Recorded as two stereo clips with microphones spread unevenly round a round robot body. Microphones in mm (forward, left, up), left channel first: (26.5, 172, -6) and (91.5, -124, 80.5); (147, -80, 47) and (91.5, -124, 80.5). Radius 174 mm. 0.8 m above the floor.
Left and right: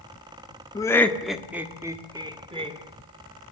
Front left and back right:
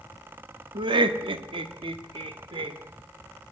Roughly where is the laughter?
Behind.